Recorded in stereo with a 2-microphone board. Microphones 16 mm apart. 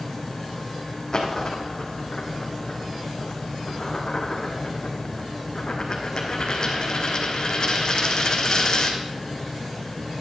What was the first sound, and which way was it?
A dropped coin, 45° left (ahead or behind).